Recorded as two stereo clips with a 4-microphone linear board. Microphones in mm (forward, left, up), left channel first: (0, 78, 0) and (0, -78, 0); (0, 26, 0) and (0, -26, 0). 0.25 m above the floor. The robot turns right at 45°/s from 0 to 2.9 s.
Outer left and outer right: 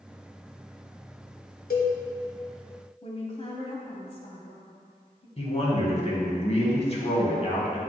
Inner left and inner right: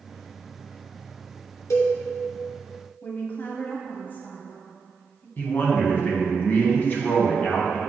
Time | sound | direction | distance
1.7 | a cowbell | 80° left | 1.2 m
3.0 | a woman speaking | 40° left (ahead or behind) | 1.3 m
5.4 | a man speaking | 40° left (ahead or behind) | 1.8 m